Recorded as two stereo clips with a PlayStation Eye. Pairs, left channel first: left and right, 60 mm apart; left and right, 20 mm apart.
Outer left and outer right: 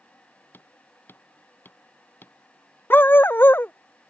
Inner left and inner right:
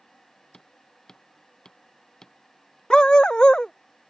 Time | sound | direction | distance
0.5 | hammering | 35° left (ahead or behind) | ?
2.9 | a dog barking | 35° left (ahead or behind) | ?